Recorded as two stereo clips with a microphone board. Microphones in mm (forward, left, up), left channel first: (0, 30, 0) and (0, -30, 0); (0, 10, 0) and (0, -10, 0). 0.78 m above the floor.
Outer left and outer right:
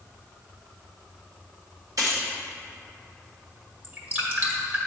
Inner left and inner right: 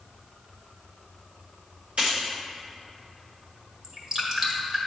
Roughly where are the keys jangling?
Right.